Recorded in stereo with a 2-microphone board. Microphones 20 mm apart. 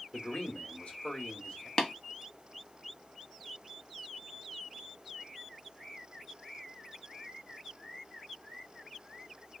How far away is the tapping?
About 1.1 m.